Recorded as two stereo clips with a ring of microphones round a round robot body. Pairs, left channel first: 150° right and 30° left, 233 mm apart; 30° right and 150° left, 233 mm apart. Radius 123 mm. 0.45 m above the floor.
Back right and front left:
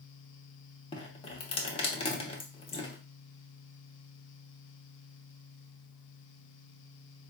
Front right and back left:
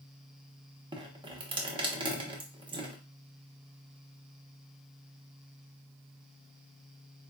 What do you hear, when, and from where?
0.9 s dripping: 170° right, 0.9 m